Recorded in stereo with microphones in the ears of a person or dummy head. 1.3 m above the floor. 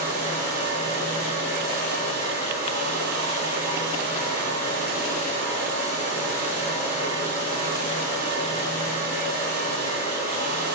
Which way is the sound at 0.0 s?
55° right (ahead or behind).